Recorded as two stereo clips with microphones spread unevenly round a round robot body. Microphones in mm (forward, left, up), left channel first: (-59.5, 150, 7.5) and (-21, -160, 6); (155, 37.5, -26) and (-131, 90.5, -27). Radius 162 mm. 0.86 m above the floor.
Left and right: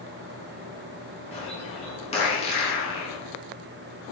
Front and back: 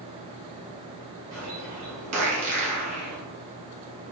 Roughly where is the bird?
Behind.